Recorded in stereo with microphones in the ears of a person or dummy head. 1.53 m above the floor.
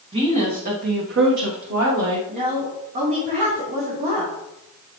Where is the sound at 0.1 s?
30° right (ahead or behind), 1.9 m; by 2.2 s 70° right (ahead or behind), 1.6 m.